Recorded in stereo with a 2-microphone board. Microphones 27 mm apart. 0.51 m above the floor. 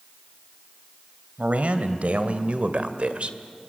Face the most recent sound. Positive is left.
turn(degrees=-55)  # may be behind; listen again after turning